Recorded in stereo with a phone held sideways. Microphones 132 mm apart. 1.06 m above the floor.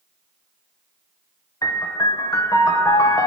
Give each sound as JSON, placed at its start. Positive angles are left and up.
{"t": 1.6, "sound": "a piano", "side_deg": 25, "distance_m": 0.7}